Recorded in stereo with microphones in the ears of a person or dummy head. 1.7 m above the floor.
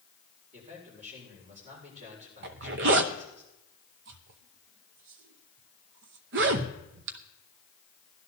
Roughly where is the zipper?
Right.